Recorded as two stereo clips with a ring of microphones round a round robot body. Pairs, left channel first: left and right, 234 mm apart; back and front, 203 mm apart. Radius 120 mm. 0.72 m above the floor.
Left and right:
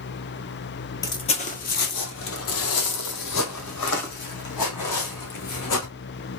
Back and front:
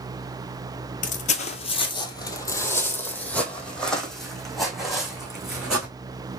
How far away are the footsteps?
About 0.8 m.